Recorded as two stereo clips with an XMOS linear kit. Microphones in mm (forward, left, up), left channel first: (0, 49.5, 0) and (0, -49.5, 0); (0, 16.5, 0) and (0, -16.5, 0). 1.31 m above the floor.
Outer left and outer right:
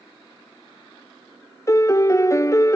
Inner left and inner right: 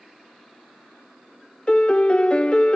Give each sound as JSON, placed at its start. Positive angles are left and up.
{"t": 1.7, "sound": "a piano", "side_deg": 30, "distance_m": 0.8}